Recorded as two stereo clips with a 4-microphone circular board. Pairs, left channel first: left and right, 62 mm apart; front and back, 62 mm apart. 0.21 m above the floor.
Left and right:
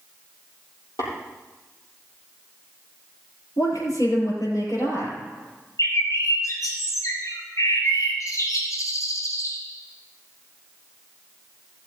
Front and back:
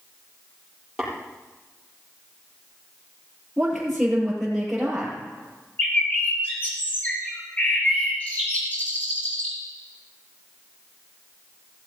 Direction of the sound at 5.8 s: 65° left.